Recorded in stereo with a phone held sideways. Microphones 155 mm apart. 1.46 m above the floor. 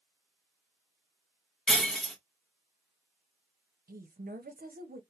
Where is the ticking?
No ticking in this recording.